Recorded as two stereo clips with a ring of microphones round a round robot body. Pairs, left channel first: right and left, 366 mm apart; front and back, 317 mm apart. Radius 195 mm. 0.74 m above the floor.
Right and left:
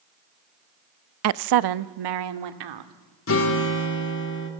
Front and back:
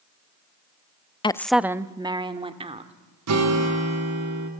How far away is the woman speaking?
About 0.6 m.